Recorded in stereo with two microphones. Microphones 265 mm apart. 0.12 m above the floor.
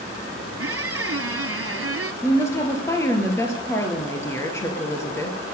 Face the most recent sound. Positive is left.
turn(degrees=10)  # may be behind; listen again after turning